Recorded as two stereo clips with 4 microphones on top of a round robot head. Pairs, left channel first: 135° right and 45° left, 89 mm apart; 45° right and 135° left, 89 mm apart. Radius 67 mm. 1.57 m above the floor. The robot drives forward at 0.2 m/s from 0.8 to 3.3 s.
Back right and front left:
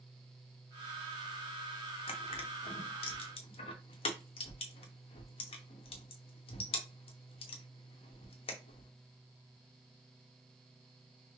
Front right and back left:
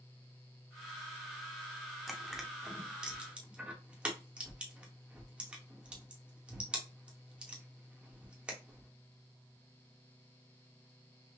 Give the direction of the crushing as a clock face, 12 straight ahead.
4 o'clock.